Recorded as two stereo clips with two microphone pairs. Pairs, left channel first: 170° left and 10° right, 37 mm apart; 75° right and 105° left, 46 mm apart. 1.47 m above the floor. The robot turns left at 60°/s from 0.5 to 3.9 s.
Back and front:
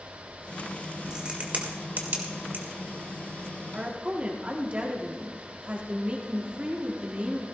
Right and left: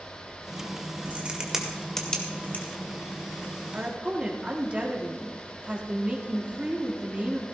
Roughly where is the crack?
Ahead left.